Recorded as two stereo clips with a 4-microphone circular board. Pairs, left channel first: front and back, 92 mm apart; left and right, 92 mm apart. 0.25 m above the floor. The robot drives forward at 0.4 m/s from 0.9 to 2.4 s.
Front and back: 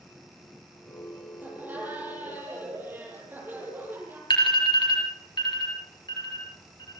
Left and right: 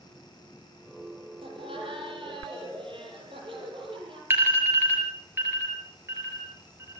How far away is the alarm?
About 6 m.